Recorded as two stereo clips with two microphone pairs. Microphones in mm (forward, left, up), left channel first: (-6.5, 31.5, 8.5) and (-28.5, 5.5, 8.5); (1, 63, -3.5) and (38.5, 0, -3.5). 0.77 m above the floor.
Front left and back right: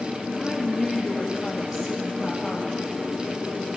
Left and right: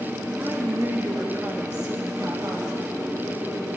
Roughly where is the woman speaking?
Ahead right.